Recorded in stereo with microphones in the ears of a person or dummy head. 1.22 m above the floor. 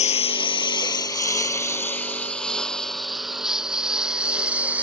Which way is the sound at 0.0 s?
35° left (ahead or behind).